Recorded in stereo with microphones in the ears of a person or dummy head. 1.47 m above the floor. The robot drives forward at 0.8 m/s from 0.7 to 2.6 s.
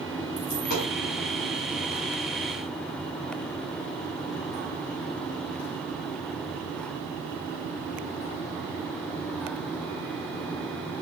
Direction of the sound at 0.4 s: 50° left (ahead or behind).